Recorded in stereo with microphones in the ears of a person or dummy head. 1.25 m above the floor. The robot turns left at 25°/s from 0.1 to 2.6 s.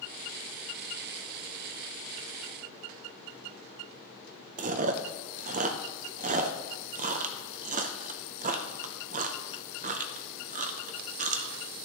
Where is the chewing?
40° right (ahead or behind), 0.5 m.